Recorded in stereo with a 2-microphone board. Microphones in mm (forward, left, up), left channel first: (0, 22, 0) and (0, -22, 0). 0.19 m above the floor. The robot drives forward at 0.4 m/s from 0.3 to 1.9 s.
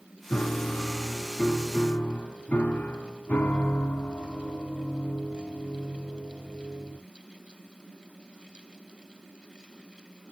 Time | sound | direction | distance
0.3 | a piano | 35° left (ahead or behind) | 1.2 m